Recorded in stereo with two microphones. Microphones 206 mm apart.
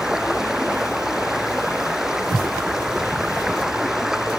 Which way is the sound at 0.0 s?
Centre (ahead or behind).